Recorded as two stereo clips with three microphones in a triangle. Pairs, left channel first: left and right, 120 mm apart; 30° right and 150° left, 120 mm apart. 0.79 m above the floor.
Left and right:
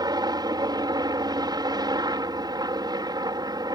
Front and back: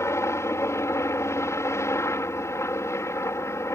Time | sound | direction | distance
0.0 | a helicopter | 75° right | ?